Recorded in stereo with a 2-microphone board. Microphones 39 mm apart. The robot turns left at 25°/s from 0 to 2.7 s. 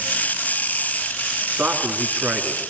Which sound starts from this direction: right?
A man speaking, at 1.5 s.